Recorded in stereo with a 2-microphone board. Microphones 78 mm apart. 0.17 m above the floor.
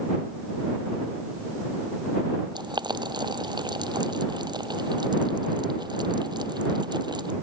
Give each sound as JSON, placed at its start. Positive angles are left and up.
{"t": 2.5, "sound": "boiling", "side_deg": -70}